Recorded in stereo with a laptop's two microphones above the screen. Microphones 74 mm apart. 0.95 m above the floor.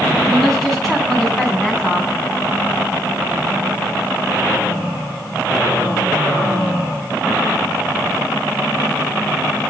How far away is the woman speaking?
About 9 m.